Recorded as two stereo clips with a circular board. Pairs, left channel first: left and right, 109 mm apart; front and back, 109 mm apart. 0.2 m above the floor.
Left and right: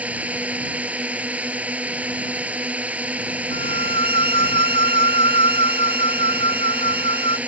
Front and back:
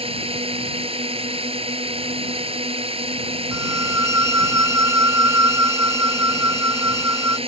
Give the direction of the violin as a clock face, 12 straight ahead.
8 o'clock.